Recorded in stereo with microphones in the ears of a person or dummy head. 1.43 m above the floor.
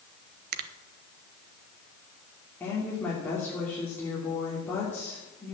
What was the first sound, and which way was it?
A finger snap, 55° right (ahead or behind).